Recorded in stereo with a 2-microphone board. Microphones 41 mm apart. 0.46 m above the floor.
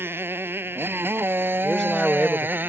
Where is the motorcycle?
80° right; by 2.7 s 60° right (ahead or behind).